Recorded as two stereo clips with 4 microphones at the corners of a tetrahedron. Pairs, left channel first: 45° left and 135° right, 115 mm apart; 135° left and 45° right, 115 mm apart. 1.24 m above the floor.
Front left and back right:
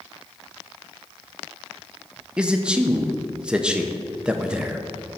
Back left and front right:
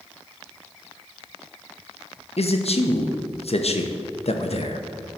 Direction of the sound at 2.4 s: 145° left.